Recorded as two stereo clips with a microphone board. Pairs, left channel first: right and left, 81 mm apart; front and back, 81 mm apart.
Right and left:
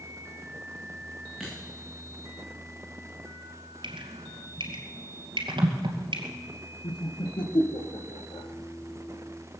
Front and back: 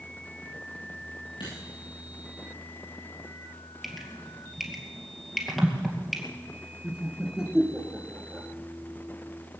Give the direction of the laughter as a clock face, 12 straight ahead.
3 o'clock.